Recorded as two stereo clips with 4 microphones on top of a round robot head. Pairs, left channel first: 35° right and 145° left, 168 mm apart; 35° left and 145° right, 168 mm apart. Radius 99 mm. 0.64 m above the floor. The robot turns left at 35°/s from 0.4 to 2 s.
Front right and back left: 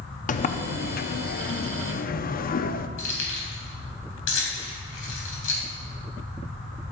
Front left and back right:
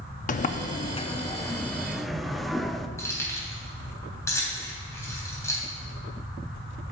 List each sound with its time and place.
0.3 s a sliding door: straight ahead, 0.7 m; by 2.9 s 55° right, 0.7 m
3.0 s keys jangling: 40° right, 3 m